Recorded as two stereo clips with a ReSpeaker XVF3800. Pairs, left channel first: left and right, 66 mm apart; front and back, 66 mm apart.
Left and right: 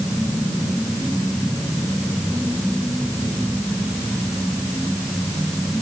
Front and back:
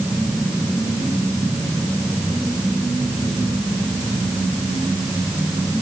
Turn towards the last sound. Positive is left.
No sound to turn to.